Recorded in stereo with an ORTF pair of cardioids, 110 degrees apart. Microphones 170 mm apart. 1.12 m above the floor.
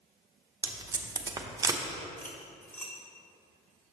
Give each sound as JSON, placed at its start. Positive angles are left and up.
{"t": 0.6, "sound": "tape being pulled", "azimuth_deg": -20, "distance_m": 0.6}
{"t": 2.2, "sound": "cutlery clinking", "azimuth_deg": 15, "distance_m": 1.4}